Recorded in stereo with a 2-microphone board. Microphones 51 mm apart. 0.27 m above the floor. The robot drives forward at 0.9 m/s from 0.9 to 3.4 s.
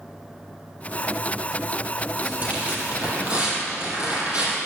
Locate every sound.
2.2 s tearing paper: 35° right (ahead or behind), 4 m; by 4.6 s 30° right (ahead or behind), 5 m